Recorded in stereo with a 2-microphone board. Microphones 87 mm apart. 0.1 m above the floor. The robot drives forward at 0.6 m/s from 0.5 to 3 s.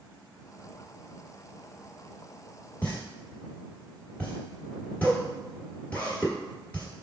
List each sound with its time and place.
2.8 s a pop: 20° left (ahead or behind), 1.5 m; by 6.9 s 15° left (ahead or behind), 1.6 m